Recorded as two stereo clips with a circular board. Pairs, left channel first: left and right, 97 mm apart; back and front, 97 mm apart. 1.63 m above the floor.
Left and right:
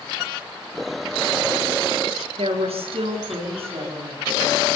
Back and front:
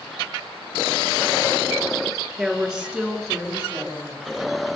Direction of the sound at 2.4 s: 80° right.